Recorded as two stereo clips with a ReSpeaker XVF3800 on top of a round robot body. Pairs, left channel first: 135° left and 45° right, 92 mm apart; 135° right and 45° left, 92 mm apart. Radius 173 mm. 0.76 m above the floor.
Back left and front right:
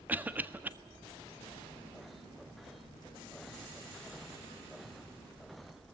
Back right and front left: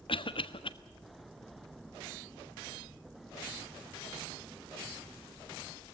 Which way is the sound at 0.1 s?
115° right.